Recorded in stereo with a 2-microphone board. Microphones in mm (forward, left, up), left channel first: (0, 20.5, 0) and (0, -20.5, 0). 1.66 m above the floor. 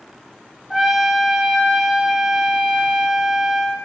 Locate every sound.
0.7 s a trumpet: 10° right (ahead or behind), 1.7 m